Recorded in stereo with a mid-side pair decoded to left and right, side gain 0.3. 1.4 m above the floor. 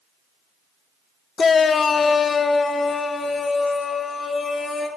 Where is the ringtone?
I don't hear a ringtone.